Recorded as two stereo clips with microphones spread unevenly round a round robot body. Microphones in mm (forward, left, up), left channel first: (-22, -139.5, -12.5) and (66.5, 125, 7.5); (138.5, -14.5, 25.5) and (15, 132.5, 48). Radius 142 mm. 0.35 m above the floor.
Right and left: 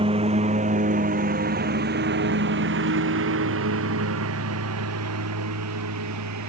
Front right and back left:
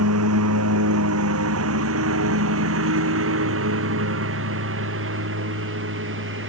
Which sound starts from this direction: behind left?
A lawn mower, at 0.0 s.